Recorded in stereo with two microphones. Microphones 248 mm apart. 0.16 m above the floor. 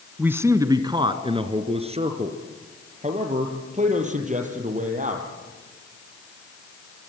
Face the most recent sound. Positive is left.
turn(degrees=-30)  # may be behind; listen again after turning